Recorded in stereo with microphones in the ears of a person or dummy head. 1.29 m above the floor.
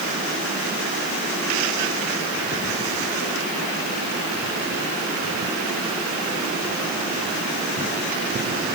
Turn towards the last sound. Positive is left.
No sound to turn to.